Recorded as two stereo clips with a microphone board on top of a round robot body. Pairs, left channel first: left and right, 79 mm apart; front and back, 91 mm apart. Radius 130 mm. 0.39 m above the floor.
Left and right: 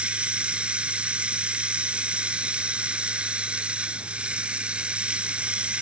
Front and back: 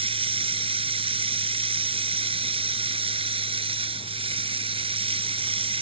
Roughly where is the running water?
Behind.